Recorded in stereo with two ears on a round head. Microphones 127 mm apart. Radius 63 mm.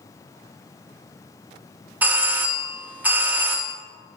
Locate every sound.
2.0 s a doorbell: 10° right (ahead or behind), 0.9 m